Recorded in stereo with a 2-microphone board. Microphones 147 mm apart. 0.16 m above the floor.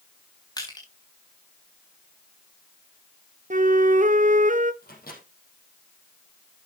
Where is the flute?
60° right (ahead or behind), 0.8 m.